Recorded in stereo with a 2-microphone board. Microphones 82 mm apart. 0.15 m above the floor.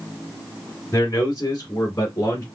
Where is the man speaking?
35° left (ahead or behind), 1.7 m.